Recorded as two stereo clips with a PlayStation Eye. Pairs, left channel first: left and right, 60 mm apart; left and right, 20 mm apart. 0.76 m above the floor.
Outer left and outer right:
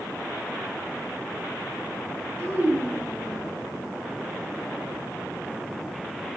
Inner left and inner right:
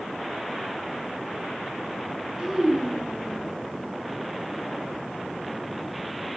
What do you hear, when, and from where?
2.4 s a child speaking: 55° right (ahead or behind), 6.5 m